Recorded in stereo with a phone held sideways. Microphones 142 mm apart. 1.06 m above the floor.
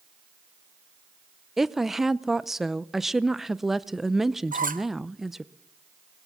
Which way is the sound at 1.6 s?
Centre (ahead or behind).